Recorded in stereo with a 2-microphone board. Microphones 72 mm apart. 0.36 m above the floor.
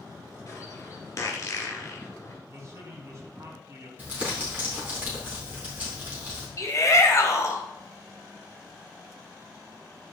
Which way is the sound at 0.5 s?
40° left (ahead or behind).